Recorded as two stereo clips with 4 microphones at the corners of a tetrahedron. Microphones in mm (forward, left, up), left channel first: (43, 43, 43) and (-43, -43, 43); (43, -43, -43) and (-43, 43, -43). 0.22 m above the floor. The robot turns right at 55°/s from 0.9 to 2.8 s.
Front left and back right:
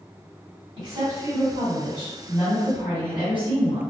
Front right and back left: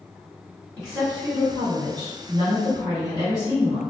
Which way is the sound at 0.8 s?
125° right.